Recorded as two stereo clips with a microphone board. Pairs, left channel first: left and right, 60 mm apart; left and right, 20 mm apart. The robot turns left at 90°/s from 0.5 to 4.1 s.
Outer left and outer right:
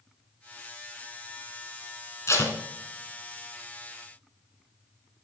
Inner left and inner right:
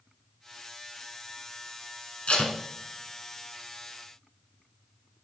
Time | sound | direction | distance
2.3 | tape being pulled | 55° left (ahead or behind) | 1.2 m